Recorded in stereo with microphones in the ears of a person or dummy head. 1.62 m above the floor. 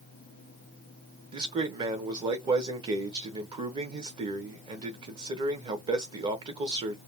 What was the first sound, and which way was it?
A man speaking, 25° right (ahead or behind).